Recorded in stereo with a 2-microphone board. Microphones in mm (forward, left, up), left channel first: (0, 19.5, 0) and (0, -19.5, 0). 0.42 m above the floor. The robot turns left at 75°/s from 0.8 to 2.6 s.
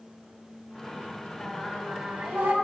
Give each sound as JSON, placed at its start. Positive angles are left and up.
{"t": 1.4, "sound": "singing", "azimuth_deg": 15, "distance_m": 1.0}